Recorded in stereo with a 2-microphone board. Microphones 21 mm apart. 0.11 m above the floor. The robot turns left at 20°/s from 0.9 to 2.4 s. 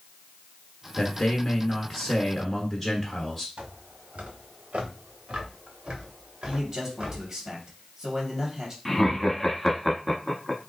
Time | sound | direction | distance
1.0 | a man speaking | 10° left (ahead or behind) | 1.3 m
3.6 | footsteps | 90° right | 1.0 m
6.5 | a man speaking | 25° right (ahead or behind) | 2.5 m
8.8 | laughter | 10° left (ahead or behind) | 1.2 m